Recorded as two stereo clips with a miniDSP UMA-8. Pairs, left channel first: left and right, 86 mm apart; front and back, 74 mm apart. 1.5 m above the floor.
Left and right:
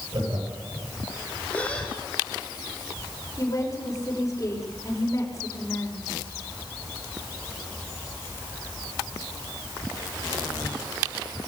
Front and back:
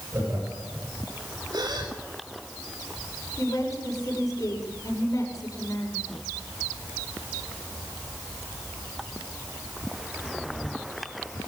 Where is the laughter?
125° right, 8.5 m.